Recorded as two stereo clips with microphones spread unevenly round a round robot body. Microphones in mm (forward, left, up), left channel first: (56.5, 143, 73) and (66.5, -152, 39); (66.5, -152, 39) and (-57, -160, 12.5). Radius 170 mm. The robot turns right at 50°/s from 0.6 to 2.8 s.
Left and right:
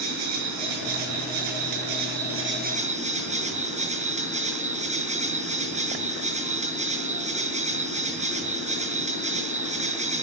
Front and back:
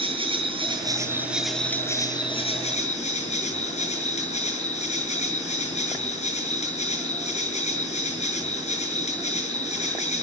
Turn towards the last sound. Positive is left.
turn(degrees=-20)